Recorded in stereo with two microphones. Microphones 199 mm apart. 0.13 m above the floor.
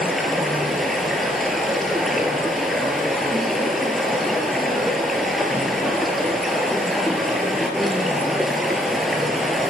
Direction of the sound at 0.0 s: Centre (ahead or behind).